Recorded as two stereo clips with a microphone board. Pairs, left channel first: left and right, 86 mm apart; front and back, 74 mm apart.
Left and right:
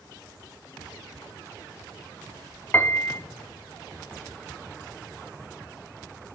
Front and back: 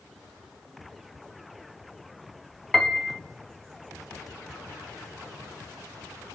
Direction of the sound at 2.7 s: 80° left.